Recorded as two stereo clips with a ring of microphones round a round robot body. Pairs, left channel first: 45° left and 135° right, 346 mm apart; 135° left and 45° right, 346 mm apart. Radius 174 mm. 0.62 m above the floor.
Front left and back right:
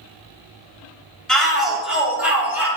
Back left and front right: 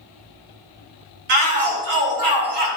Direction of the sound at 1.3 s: 45° right.